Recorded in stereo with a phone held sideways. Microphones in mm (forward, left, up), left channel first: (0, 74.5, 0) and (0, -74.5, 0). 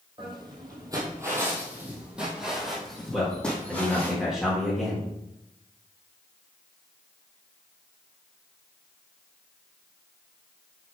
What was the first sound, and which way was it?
Footsteps, 35° right (ahead or behind).